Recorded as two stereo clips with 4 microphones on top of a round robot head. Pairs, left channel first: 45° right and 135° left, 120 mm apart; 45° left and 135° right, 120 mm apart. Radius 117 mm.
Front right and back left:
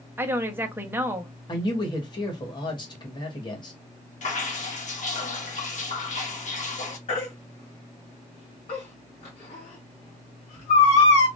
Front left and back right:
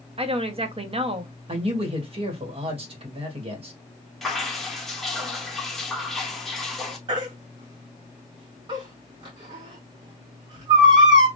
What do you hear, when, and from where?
0.2 s a woman speaking: 155° right, 1.2 m
1.5 s a man speaking: 95° right, 1.9 m
4.2 s dripping: 45° right, 1.4 m
7.1 s a baby crying: 85° right, 1.8 m